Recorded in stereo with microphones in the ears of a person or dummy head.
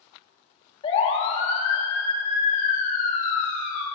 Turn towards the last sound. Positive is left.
turn(degrees=55)  # may be behind; listen again after turning